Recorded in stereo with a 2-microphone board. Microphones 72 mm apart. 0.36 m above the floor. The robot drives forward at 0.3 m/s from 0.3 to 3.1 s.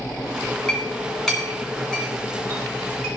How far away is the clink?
About 2 m.